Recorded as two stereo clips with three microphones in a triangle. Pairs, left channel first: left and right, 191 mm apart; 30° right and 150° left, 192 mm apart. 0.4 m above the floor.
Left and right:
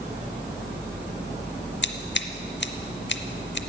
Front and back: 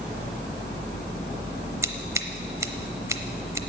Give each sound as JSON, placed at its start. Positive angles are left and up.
{"t": 1.8, "sound": "scissors", "azimuth_deg": 75, "distance_m": 0.7}